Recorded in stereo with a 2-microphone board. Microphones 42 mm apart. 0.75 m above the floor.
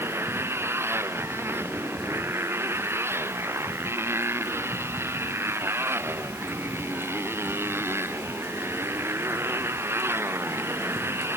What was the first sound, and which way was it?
A motorcycle, 80° right.